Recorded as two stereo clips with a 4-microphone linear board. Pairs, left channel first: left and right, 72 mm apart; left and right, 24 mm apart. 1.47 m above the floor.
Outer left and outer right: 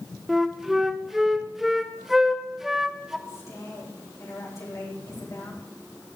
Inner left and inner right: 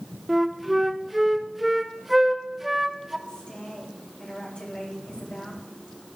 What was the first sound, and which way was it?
A flute, 5° right (ahead or behind).